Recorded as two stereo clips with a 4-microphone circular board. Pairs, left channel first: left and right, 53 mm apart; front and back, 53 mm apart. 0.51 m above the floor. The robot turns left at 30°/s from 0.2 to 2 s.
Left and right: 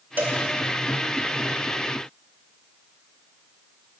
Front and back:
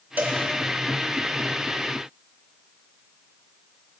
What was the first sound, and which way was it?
A cowbell, 135° right.